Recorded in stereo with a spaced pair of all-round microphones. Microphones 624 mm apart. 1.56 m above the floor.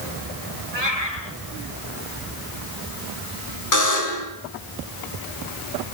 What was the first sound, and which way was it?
A cat meowing, 80° right.